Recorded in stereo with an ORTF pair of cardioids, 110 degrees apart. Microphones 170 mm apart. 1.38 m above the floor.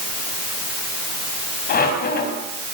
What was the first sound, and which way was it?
A squeak, 65° left.